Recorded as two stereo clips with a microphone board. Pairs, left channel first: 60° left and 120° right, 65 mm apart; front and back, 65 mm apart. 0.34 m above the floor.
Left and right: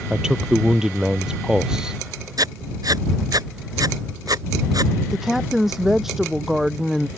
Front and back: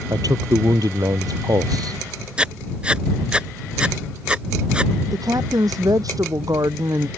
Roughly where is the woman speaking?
Behind left.